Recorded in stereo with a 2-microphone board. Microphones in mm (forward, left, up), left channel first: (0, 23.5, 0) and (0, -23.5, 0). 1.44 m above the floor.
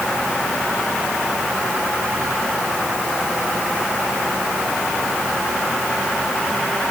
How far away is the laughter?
No laughter in this recording.